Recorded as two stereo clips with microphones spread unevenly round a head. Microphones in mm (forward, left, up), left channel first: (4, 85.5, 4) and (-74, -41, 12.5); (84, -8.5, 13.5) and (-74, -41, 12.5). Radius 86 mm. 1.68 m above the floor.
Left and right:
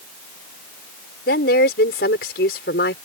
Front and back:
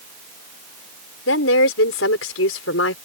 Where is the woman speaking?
20° left.